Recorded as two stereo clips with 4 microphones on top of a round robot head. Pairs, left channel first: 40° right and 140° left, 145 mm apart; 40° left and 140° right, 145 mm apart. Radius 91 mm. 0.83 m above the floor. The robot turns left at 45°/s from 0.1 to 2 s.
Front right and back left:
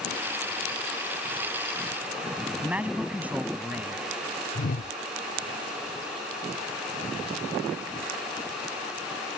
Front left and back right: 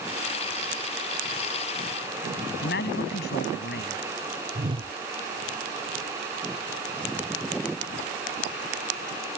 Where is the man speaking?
60° left.